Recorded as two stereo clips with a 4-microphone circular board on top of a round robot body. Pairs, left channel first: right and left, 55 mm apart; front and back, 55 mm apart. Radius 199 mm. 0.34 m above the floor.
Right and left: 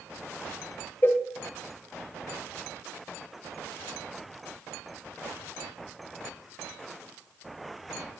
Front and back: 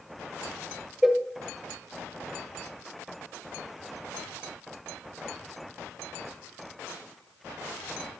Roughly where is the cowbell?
Right.